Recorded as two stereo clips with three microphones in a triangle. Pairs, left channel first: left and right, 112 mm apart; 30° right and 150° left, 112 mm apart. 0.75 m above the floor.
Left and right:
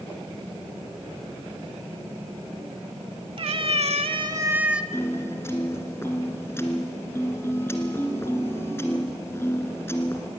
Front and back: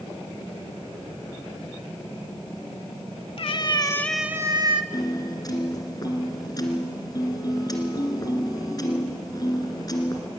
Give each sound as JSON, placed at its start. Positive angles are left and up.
{"t": 3.4, "sound": "a cat meowing", "azimuth_deg": -60, "distance_m": 1.1}
{"t": 4.9, "sound": "a piano", "azimuth_deg": 25, "distance_m": 2.0}